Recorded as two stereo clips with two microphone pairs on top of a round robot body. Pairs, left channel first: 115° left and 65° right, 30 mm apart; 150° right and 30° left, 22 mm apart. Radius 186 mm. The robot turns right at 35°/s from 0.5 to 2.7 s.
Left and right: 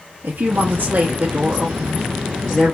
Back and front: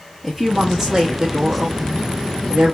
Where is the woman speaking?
50° right, 1.1 m; by 2.8 s 25° left, 1.1 m.